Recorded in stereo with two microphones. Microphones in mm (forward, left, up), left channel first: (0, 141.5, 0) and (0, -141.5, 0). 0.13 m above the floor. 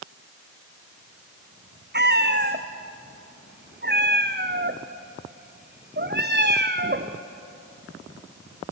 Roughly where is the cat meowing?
Right.